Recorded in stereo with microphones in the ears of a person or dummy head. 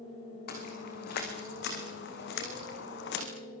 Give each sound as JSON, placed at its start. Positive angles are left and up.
{"t": 0.5, "sound": "footsteps", "side_deg": 60, "distance_m": 6.5}